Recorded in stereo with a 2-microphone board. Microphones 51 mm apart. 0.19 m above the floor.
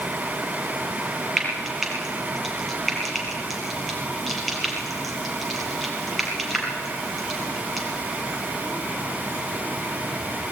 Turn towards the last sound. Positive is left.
turn(degrees=0)  # may be behind; listen again after turning